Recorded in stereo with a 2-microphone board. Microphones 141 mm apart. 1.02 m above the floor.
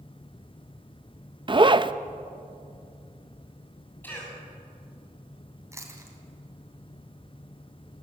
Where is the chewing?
20° right (ahead or behind), 3 m.